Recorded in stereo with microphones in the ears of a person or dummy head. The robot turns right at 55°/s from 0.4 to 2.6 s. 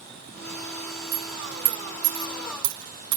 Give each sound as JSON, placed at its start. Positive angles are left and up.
{"t": 1.1, "sound": "a dropped coin", "side_deg": -10, "distance_m": 1.5}